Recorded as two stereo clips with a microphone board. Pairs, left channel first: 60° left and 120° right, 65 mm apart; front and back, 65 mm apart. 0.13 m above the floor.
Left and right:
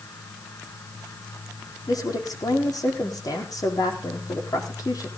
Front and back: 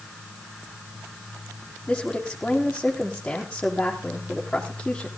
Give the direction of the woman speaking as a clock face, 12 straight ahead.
9 o'clock.